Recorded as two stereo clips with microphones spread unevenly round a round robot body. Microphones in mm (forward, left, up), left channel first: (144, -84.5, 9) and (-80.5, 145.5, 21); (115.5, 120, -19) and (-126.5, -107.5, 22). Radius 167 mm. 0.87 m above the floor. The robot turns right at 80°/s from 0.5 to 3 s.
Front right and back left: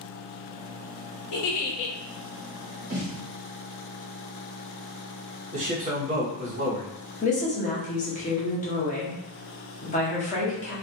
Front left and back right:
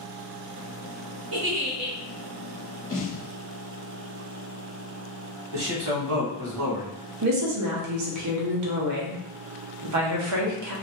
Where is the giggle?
85° right, 0.6 m; by 2.0 s 35° right, 0.6 m.